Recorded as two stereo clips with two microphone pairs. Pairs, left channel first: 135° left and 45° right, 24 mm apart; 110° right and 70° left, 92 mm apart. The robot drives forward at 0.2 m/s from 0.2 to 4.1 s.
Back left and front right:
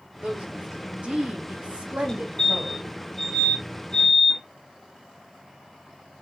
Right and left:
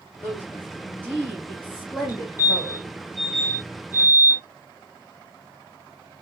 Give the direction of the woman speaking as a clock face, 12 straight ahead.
1 o'clock.